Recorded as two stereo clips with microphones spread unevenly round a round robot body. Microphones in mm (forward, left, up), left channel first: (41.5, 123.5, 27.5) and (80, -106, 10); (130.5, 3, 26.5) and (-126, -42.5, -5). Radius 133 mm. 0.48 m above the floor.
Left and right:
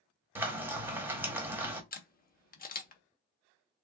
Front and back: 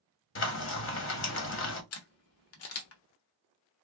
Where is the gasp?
I don't hear a gasp.